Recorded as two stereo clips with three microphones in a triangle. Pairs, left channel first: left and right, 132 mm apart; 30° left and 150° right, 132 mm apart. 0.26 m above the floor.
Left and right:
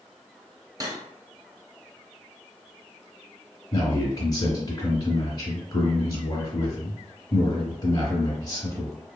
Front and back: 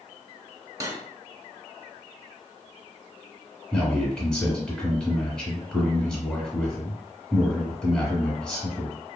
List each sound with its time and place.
0.8 s cutlery clinking: 115° right, 0.6 m
3.7 s a man speaking: 110° left, 1.1 m